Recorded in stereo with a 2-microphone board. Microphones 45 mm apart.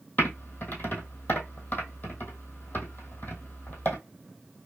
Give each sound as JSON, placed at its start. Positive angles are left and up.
{"t": 0.2, "sound": "typing on a keyboard", "side_deg": 40, "distance_m": 1.3}